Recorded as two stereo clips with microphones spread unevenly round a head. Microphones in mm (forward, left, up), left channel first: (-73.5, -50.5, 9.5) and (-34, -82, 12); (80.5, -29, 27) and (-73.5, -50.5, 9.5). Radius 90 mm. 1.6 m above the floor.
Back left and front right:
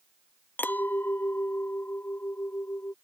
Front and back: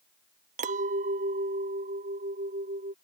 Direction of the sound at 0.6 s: 165° left.